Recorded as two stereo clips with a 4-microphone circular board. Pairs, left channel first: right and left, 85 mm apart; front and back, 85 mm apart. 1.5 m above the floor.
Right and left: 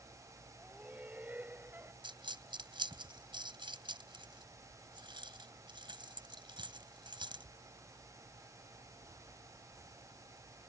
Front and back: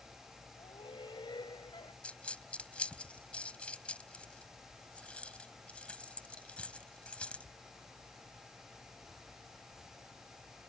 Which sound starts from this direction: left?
A dropped coin, at 2.0 s.